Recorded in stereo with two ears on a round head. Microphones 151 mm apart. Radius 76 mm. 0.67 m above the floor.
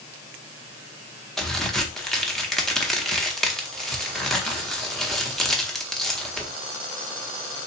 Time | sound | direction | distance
1.4 | a crack | centre (ahead or behind) | 0.7 m